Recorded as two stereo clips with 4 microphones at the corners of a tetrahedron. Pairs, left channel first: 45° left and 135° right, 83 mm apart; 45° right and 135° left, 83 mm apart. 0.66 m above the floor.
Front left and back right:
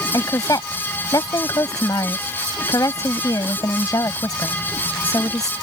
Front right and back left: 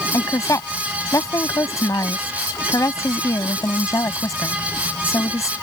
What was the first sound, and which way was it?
A woman speaking, 5° left.